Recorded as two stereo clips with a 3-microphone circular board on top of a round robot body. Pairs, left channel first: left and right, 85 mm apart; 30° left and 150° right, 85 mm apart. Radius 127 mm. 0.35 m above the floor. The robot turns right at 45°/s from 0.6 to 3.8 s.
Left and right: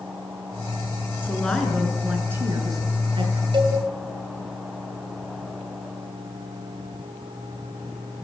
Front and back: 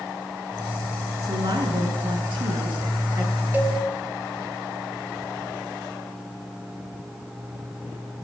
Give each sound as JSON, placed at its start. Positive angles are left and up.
{"t": 1.2, "sound": "a woman speaking", "azimuth_deg": 155, "distance_m": 7.5}
{"t": 3.5, "sound": "a cowbell", "azimuth_deg": -80, "distance_m": 3.5}